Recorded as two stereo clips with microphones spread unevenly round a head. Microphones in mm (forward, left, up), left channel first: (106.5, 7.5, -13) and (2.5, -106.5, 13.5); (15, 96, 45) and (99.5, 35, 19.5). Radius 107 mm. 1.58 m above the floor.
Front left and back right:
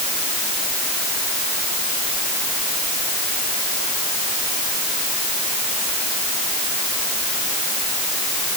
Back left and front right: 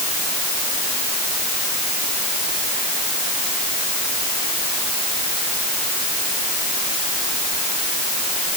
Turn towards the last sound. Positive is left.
No sound to turn to.